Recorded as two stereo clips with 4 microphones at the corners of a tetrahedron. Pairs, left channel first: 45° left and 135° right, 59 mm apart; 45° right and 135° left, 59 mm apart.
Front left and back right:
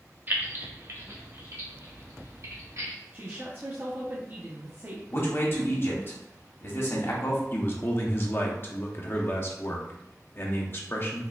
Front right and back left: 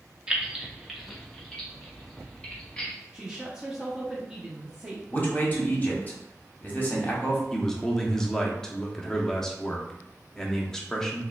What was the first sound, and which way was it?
Keys jangling, 160° right.